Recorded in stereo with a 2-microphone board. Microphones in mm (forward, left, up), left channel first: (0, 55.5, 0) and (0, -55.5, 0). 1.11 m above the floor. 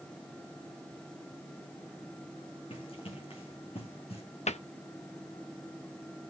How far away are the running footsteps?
About 5 m.